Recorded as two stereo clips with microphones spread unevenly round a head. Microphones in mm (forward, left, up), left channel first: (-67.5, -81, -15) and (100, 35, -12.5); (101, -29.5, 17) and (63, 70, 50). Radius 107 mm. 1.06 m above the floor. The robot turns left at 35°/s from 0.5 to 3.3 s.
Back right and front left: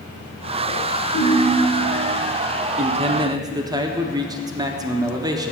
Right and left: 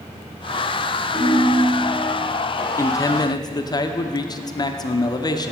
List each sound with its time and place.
1.1 s a ringtone: 125° right, 2 m; by 1.9 s 150° right, 2 m
2.8 s a man speaking: 15° right, 0.5 m; by 5.5 s 35° right, 0.5 m